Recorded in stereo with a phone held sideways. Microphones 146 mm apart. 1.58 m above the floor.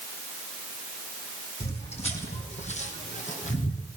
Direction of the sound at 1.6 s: 50° left (ahead or behind).